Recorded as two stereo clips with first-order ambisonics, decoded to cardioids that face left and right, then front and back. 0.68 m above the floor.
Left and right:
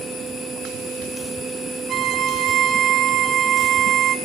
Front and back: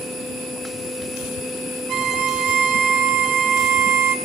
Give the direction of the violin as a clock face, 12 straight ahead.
5 o'clock.